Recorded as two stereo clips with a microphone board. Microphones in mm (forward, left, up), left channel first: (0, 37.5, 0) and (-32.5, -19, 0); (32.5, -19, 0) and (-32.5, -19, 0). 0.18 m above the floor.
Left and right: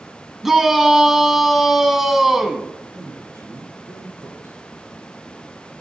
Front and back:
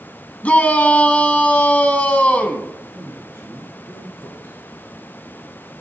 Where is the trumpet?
No trumpet in this recording.